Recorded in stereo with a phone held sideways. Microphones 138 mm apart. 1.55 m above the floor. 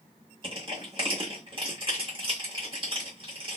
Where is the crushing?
35° right (ahead or behind), 1.7 m.